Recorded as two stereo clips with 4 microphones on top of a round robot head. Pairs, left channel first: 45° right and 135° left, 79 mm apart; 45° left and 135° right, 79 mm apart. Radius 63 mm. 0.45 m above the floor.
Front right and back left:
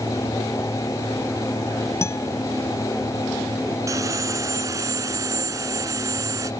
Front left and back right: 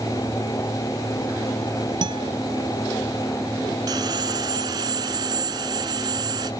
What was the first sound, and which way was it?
A guitar, 100° right.